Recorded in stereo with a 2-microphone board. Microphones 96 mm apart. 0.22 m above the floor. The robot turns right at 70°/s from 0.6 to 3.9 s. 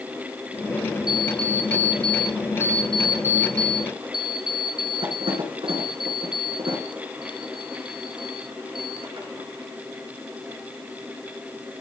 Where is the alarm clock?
45° left, 4 m; by 9.3 s 115° right, 4 m.